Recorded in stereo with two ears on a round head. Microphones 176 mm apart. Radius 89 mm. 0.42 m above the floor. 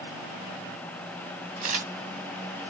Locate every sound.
1.6 s a camera shutter: 45° right (ahead or behind), 2.5 m